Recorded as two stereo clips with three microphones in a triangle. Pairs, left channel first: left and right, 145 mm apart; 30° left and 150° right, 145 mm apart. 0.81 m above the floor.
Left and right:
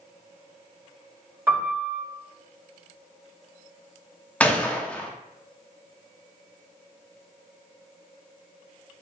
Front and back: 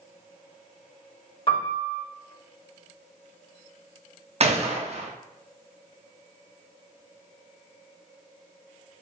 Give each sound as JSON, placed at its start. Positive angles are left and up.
{"t": 1.5, "sound": "a piano", "azimuth_deg": -20, "distance_m": 1.3}
{"t": 4.4, "sound": "a gunshot", "azimuth_deg": 170, "distance_m": 0.5}